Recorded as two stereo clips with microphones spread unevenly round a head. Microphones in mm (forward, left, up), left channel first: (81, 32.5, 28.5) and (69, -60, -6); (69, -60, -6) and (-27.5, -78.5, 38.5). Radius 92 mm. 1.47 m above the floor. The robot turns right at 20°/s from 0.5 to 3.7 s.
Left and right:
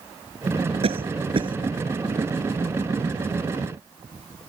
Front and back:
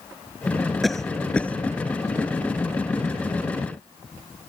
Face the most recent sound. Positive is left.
turn(degrees=-25)